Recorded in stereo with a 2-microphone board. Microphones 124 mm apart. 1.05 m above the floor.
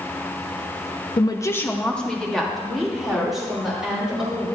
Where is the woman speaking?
40° left (ahead or behind), 0.6 m; by 4.5 s 5° right (ahead or behind), 4 m.